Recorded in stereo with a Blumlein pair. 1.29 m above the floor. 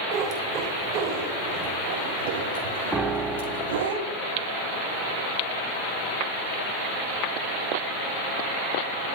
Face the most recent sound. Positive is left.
turn(degrees=-10)